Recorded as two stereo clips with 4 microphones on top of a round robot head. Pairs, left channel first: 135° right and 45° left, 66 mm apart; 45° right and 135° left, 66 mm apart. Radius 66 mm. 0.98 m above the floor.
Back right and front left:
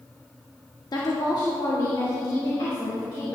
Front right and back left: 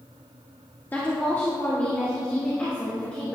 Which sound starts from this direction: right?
A woman speaking, at 0.9 s.